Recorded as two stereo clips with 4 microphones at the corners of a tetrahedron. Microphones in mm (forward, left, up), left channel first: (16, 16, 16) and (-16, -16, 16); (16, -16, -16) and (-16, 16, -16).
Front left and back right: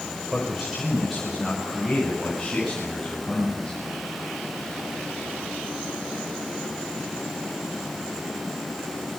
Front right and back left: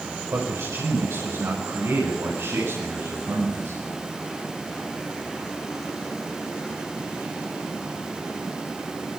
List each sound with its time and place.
0.3 s a man speaking: 140° left, 6 m; by 3.8 s 130° left, 11.5 m